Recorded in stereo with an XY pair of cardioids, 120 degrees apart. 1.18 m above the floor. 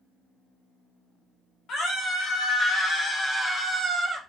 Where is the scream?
60° left, 1.7 m; by 4.2 s 10° right, 0.8 m.